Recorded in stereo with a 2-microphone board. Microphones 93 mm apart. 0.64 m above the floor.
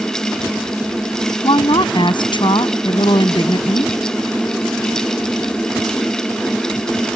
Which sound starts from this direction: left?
A woman speaking, at 1.4 s.